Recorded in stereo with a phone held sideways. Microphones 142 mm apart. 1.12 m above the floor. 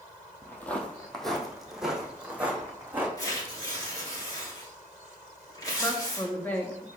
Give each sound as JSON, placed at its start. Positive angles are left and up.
{"t": 0.4, "sound": "footsteps", "side_deg": 15, "distance_m": 1.5}
{"t": 3.2, "sound": "tearing paper", "side_deg": 25, "distance_m": 2.5}
{"t": 5.8, "sound": "a woman speaking", "side_deg": 10, "distance_m": 1.5}